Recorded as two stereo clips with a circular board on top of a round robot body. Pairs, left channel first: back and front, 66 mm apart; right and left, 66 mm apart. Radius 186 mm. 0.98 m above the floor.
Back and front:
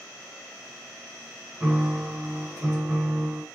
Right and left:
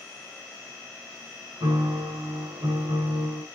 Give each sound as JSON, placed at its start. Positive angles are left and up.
{"t": 1.6, "sound": "a piano", "azimuth_deg": 80, "distance_m": 2.5}